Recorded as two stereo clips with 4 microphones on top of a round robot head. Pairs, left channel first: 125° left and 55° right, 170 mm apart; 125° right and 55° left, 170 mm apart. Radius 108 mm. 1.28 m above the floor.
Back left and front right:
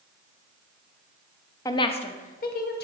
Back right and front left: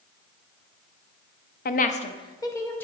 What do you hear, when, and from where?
1.6 s a woman speaking: 165° right, 0.6 m; by 2.9 s 155° left, 1.0 m